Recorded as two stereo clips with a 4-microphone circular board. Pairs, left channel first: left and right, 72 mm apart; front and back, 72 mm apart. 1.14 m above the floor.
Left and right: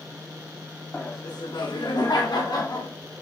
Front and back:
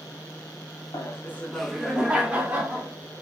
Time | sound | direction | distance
0.9 | laughter | 30° left | 0.6 m